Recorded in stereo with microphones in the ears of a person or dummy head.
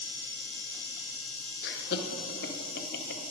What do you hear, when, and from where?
1.6 s laughter: 45° left (ahead or behind), 0.7 m